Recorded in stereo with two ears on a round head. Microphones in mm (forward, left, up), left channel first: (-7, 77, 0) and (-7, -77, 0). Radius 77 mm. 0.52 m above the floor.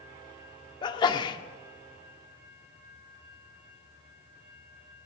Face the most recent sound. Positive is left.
turn(degrees=25)  # may be behind; listen again after turning